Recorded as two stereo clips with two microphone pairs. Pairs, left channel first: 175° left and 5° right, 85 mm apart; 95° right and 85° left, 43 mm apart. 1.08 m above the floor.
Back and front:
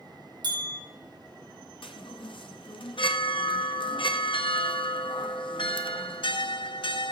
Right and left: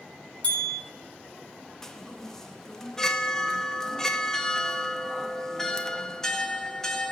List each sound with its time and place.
0.4 s a bell: 35° right, 3.5 m
1.8 s a chime: 175° right, 0.7 m